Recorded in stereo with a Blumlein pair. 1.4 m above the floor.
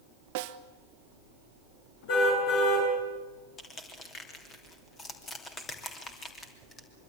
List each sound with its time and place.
0.3 s a snare drum: 45° right, 1.1 m
2.1 s a car horn: 45° left, 8 m
3.6 s crushing: 20° left, 3 m